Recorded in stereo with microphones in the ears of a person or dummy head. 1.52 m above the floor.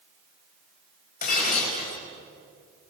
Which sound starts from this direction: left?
Breaking glass, at 1.2 s.